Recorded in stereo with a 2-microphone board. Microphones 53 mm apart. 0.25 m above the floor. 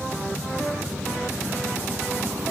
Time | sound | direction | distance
0.0 | a helicopter | 75° right (ahead or behind) | ?